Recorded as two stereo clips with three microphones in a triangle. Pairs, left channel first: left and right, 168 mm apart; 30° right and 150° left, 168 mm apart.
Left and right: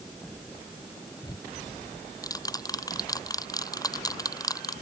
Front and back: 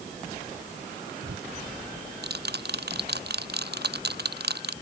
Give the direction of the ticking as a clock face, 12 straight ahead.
7 o'clock.